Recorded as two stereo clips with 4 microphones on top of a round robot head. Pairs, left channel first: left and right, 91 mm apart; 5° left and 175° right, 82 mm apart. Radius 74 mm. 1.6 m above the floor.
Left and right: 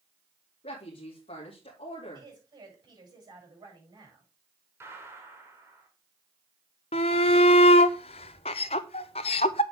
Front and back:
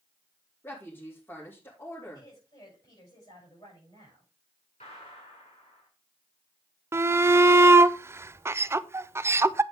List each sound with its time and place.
0.6 s a woman speaking: 70° left, 2.5 m
2.1 s a woman speaking: 50° right, 7.5 m
4.8 s a gunshot: 30° right, 2 m
6.9 s a shout: 125° left, 0.7 m